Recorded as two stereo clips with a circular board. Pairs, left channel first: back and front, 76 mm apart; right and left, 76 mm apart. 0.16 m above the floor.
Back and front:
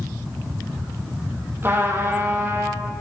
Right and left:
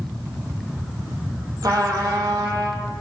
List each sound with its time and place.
1.6 s a trumpet: 60° left, 2.5 m